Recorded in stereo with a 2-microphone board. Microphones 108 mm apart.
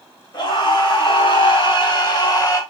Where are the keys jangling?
I don't hear keys jangling.